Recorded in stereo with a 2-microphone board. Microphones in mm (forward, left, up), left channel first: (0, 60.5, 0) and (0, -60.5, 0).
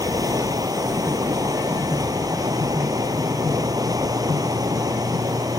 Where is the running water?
30° right (ahead or behind).